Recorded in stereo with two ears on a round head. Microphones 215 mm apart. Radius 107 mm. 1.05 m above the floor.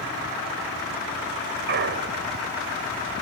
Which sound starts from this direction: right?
A clunk, at 1.7 s.